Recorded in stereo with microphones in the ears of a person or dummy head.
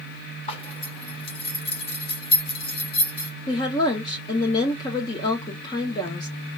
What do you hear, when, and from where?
0.5 s a zipper: 30° left (ahead or behind), 0.8 m
3.5 s a woman speaking: 25° left (ahead or behind), 0.6 m